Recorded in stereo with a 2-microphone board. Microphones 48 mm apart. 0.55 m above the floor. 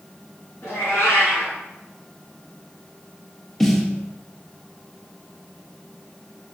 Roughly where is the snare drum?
Centre.